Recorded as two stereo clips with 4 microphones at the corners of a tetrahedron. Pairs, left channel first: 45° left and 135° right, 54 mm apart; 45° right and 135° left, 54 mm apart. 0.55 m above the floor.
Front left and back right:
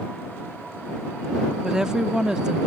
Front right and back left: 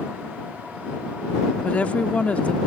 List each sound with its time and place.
1.6 s a woman speaking: 75° right